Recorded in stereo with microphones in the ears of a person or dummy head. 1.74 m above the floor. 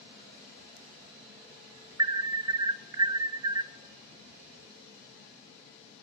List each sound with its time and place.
2.0 s an alarm: 25° right (ahead or behind), 0.6 m